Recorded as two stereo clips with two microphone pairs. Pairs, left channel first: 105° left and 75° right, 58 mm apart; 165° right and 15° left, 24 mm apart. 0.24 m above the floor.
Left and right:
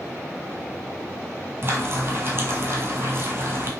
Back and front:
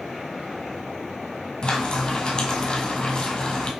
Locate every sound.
1.6 s frying: 115° right, 1.3 m